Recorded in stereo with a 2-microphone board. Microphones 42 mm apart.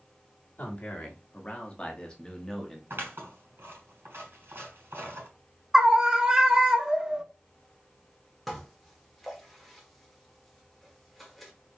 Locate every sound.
0.6 s a man speaking: 40° left (ahead or behind), 1.5 m; by 2.8 s 10° left (ahead or behind), 1.0 m
2.9 s scissors: 75° right (ahead or behind), 3 m
5.7 s a scream: 15° right (ahead or behind), 0.7 m
8.5 s dishes clattering: centre (ahead or behind), 1.2 m